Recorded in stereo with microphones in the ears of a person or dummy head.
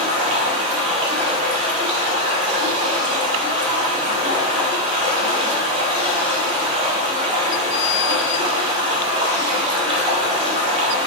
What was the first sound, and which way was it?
Running water, 30° right (ahead or behind).